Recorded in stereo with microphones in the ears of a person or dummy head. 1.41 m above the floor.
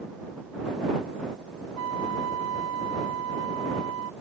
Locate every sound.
1.8 s a flute: 70° right (ahead or behind)